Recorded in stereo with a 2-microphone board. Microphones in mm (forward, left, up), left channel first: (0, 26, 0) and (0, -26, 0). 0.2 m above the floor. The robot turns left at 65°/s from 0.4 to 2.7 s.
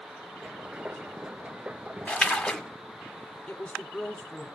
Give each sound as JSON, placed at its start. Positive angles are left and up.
{"t": 2.1, "sound": "a splash", "side_deg": 25, "distance_m": 1.5}
{"t": 3.5, "sound": "a woman speaking", "side_deg": 25, "distance_m": 1.7}